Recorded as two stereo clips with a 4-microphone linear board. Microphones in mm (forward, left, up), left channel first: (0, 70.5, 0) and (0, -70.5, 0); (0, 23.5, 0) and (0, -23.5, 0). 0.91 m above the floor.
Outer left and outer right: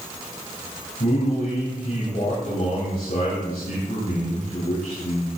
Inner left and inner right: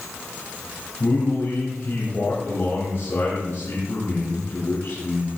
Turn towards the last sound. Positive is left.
turn(degrees=75)  # may be behind; listen again after turning